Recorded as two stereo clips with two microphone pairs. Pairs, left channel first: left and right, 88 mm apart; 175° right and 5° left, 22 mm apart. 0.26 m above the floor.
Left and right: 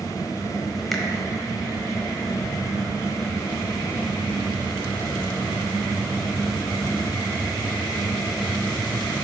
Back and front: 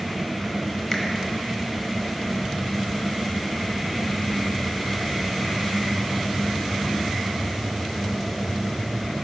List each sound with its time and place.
0.9 s a finger snap: 170° left, 1.1 m